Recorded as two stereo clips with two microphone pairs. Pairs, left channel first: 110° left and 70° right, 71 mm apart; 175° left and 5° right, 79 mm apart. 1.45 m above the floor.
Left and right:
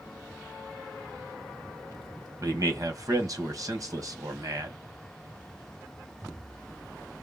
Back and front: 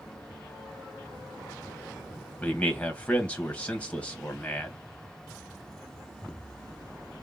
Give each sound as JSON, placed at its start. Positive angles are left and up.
{"t": 2.4, "sound": "a man speaking", "azimuth_deg": -105, "distance_m": 1.3}